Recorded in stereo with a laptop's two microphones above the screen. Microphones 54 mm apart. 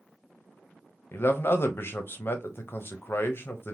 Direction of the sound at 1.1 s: 45° left (ahead or behind).